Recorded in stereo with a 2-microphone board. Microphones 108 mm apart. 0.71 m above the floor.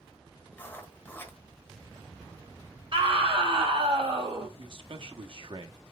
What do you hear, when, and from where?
0.5 s writing: 15° left (ahead or behind), 1.3 m
2.9 s a scream: 50° right (ahead or behind), 3.5 m
4.6 s a man speaking: 55° right (ahead or behind), 1.1 m